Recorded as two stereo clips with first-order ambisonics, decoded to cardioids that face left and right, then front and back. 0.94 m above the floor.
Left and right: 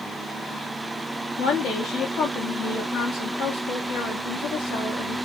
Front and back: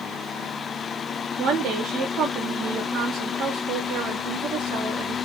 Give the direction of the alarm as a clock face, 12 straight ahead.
No alarm in this recording.